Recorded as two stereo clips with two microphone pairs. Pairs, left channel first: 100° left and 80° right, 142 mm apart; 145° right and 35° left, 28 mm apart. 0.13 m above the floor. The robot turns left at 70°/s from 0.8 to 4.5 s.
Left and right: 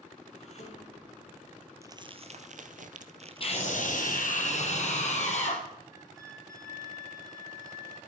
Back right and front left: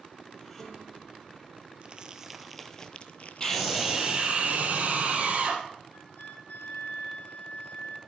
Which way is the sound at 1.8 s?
10° right.